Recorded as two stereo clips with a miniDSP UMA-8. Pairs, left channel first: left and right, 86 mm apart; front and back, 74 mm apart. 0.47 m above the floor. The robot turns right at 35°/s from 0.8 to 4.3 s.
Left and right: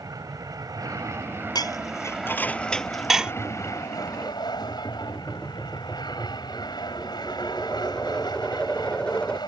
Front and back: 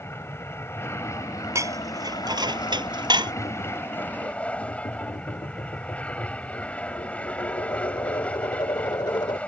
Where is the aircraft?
55° right; by 9.5 s 70° left.